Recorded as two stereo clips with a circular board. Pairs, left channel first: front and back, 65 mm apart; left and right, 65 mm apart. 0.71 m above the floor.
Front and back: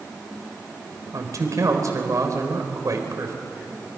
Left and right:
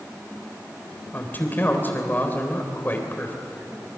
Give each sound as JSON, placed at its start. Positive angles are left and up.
{"t": 1.1, "sound": "a man speaking", "azimuth_deg": 150, "distance_m": 4.0}